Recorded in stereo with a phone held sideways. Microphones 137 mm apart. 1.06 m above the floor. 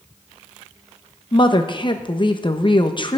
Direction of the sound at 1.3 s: 35° left (ahead or behind).